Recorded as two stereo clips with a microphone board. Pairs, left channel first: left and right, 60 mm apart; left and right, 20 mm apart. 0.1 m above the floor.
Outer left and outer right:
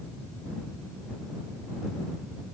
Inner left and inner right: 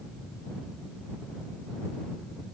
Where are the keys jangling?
I don't hear keys jangling.